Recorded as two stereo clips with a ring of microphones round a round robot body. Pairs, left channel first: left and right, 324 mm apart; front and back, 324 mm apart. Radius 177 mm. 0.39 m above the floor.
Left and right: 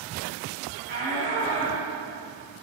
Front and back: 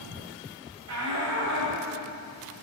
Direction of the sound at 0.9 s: 150° right.